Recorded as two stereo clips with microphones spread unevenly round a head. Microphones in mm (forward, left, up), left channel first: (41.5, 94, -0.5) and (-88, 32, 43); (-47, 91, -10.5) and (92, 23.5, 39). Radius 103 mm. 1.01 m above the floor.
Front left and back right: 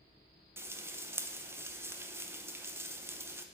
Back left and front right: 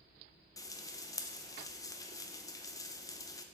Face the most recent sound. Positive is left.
turn(degrees=120)